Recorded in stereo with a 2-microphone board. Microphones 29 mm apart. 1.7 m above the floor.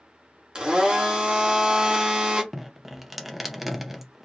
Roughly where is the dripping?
Centre.